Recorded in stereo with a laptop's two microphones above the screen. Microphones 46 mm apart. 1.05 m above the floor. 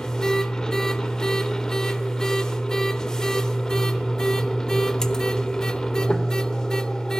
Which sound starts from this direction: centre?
A machine running, at 0.0 s.